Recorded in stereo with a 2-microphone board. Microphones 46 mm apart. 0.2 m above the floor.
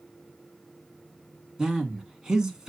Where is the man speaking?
15° right (ahead or behind), 2 m.